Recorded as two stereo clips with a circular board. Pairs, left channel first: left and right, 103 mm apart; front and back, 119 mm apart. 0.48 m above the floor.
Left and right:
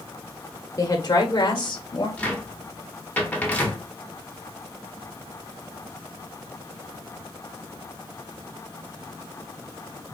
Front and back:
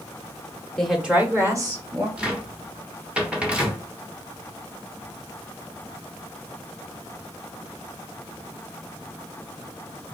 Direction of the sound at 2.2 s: 120° left.